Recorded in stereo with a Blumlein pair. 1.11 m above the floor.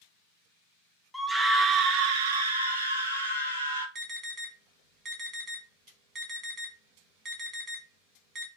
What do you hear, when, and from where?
1.1 s a scream: straight ahead, 0.6 m; by 3.9 s 80° right, 1.5 m
4.0 s an alarm: 25° right, 1.3 m